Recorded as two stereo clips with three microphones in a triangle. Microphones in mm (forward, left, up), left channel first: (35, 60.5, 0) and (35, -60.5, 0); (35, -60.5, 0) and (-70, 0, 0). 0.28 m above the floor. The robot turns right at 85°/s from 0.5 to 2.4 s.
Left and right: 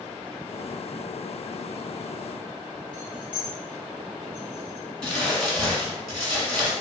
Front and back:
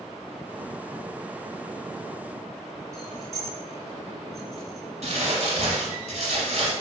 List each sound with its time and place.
2.9 s keys jangling: 120° right, 1.5 m
5.0 s crumpling: 175° left, 1.1 m